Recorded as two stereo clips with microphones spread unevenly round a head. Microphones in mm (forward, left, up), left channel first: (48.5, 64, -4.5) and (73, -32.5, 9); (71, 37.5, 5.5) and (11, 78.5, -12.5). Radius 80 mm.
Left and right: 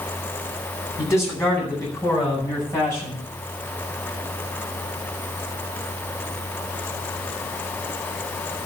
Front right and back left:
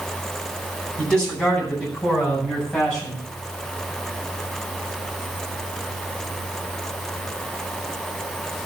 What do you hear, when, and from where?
1.0 s a man speaking: 45° left, 9 m